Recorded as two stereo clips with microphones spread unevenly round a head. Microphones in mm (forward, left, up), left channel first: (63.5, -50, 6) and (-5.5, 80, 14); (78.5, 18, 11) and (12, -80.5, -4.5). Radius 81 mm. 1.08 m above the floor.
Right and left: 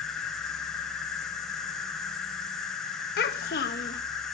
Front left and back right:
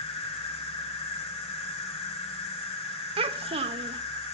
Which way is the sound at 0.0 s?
25° left.